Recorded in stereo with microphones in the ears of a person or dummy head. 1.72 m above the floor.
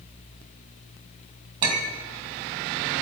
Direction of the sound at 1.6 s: 25° right (ahead or behind).